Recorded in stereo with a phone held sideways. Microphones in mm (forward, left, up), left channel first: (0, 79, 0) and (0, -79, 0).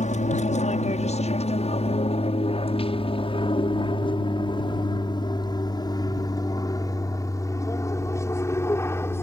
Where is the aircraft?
45° left (ahead or behind); by 9.2 s 15° left (ahead or behind).